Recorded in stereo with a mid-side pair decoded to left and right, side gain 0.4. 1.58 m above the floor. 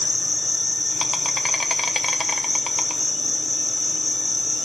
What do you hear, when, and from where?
0.0 s an insect: 25° left, 1.0 m